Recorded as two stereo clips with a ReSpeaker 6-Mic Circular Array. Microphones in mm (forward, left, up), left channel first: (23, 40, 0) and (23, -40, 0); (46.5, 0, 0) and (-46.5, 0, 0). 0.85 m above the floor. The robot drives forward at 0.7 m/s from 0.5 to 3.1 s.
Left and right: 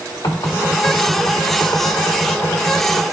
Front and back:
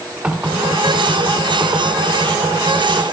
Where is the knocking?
105° left, 1.8 m; by 3.0 s 145° left, 3 m.